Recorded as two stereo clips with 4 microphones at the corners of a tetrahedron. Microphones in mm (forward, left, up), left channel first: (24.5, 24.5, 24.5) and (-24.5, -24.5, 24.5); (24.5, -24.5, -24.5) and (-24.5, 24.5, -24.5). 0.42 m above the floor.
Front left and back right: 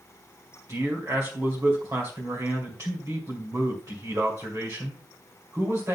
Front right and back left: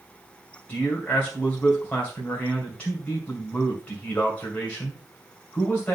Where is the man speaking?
110° right, 2.5 m.